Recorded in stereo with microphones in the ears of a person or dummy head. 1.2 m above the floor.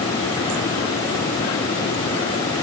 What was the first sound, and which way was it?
Only background noise.